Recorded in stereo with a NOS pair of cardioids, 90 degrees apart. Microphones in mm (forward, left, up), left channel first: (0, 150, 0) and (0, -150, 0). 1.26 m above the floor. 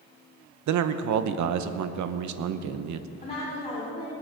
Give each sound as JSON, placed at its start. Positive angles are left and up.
{"t": 0.7, "sound": "a man speaking", "azimuth_deg": -70, "distance_m": 0.9}
{"t": 3.2, "sound": "a woman speaking", "azimuth_deg": 20, "distance_m": 4.5}